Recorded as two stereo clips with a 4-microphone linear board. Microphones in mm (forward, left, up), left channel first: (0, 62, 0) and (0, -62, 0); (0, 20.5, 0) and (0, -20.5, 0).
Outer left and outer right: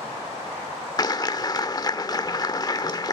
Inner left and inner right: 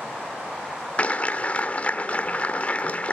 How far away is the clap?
About 1.1 m.